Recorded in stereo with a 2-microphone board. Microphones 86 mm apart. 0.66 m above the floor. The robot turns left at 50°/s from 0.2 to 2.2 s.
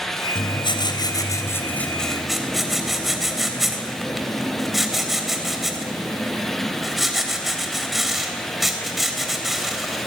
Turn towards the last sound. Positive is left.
turn(degrees=-5)